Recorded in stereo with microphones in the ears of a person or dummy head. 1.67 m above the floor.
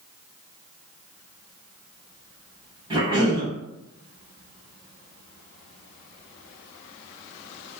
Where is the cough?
25° right (ahead or behind), 1.2 m.